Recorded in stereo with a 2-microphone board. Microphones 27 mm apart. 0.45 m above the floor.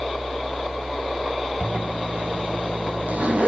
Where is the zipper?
70° right (ahead or behind), 3.5 m.